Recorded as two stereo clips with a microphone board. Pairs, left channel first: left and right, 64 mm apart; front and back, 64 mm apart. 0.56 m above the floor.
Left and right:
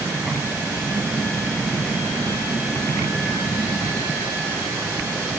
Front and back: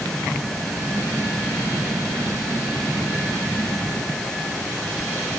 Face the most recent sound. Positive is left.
No sound to turn to.